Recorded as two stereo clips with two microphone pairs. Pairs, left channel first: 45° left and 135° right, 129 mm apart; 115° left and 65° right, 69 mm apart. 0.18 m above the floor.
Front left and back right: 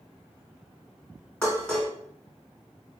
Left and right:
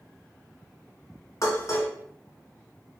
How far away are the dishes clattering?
About 1.3 m.